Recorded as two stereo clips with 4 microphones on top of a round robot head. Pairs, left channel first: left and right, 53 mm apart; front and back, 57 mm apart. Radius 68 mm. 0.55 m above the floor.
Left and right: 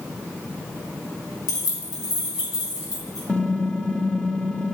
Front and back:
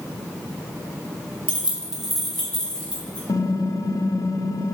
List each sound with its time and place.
1.5 s keys jangling: 120° left, 2 m; by 3.2 s 75° left, 4 m
3.3 s typing on a keyboard: 20° left, 0.8 m